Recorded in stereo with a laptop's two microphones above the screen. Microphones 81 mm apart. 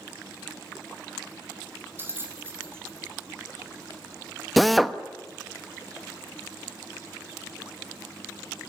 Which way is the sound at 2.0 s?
30° right (ahead or behind).